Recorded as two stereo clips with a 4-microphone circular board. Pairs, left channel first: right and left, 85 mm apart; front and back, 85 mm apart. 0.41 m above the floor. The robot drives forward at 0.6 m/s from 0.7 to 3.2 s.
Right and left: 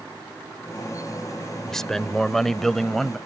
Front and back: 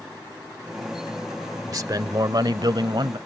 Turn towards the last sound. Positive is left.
turn(degrees=-175)